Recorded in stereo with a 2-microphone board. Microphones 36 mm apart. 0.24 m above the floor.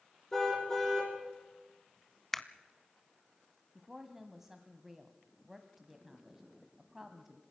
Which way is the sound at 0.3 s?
15° left (ahead or behind).